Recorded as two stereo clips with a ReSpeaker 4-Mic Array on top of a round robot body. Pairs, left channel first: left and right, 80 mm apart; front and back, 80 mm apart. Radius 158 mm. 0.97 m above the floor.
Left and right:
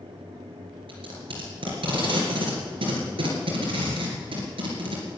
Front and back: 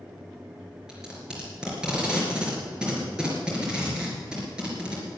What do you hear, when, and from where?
0.9 s tape being pulled: 100° right, 3.5 m